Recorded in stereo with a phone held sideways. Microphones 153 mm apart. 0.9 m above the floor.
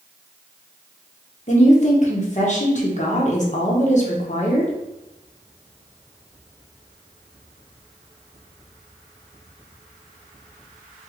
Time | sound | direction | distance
1.5 | a woman speaking | 50° left (ahead or behind) | 0.9 m